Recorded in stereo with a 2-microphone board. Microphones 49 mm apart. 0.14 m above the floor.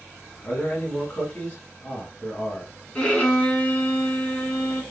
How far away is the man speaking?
About 1.1 m.